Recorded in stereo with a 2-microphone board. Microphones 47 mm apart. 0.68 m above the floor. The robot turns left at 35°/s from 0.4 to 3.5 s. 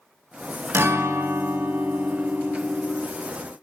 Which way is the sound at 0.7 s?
90° right.